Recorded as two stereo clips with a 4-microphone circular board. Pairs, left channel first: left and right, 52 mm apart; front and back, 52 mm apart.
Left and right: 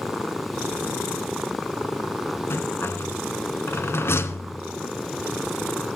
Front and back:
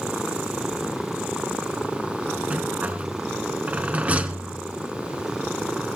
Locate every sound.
2.5 s a rattle: 120° left, 1.3 m